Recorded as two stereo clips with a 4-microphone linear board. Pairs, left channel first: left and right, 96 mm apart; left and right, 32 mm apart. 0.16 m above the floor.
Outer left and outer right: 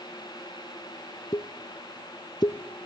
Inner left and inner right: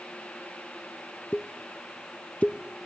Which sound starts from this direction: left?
A pop, at 1.3 s.